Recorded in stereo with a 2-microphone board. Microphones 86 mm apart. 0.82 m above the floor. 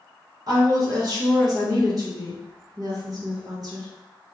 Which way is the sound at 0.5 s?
50° right (ahead or behind).